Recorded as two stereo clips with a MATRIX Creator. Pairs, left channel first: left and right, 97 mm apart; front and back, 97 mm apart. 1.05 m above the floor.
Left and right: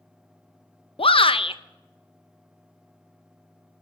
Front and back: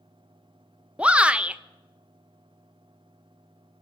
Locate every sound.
1.0 s a shout: 105° left, 0.7 m